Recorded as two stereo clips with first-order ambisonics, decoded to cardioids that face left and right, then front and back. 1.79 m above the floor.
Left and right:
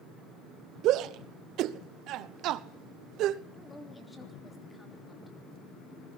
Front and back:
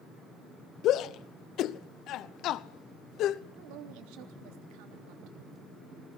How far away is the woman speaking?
About 3 m.